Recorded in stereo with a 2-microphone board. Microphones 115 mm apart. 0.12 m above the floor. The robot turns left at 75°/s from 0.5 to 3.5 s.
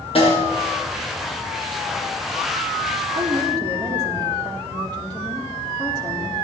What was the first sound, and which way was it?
A snare drum, 55° left (ahead or behind).